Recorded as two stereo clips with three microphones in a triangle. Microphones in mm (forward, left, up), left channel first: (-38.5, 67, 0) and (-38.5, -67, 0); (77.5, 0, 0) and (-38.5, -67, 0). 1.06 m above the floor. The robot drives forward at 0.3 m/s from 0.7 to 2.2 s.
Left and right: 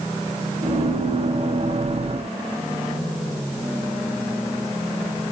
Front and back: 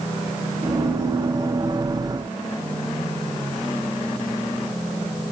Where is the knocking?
I don't hear knocking.